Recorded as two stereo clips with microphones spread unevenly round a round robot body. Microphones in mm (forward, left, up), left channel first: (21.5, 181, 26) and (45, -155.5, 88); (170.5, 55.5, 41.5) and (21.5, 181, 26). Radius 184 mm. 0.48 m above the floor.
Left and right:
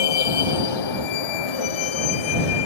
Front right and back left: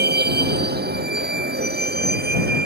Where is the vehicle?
105° left.